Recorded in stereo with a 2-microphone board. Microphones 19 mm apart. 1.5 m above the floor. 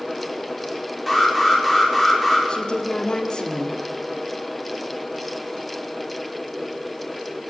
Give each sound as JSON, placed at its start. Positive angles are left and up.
{"t": 1.1, "sound": "an alarm", "side_deg": 0, "distance_m": 7.0}
{"t": 2.5, "sound": "a woman speaking", "side_deg": 45, "distance_m": 3.5}